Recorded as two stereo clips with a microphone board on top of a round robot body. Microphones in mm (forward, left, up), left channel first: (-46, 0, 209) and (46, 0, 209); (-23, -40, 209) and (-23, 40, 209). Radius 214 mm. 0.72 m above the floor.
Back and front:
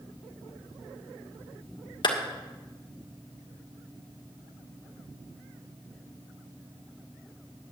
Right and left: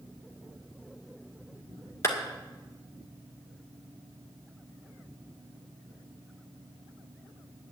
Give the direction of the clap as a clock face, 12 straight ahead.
5 o'clock.